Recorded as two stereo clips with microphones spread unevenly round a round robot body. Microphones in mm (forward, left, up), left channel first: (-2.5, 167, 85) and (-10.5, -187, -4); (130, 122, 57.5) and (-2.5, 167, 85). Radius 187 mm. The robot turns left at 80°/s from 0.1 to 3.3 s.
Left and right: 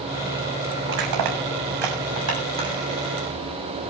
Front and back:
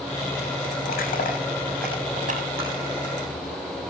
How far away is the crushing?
About 7 m.